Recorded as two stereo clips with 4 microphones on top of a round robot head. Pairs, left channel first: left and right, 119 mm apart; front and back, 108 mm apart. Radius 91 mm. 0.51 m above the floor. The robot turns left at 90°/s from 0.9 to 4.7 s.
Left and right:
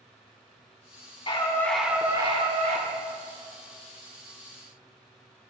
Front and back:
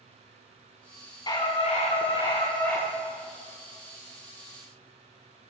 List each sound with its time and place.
1.3 s a scream: 50° left, 4.5 m; by 2.9 s 95° right, 4.5 m